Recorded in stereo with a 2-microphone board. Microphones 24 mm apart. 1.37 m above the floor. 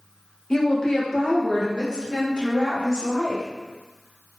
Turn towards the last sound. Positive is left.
turn(degrees=45)  # may be behind; listen again after turning